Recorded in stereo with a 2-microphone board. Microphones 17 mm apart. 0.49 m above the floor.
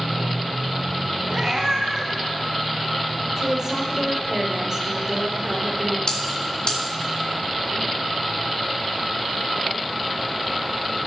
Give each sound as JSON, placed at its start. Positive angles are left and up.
{"t": 1.3, "sound": "a cat meowing", "side_deg": -45, "distance_m": 1.9}
{"t": 3.4, "sound": "a woman speaking", "side_deg": -40, "distance_m": 2.0}
{"t": 6.1, "sound": "a bell", "side_deg": 55, "distance_m": 2.0}